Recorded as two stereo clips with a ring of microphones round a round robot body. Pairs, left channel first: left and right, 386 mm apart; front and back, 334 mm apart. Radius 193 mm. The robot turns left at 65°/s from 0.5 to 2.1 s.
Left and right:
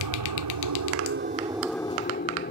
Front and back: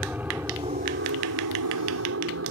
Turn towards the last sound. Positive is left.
turn(degrees=150)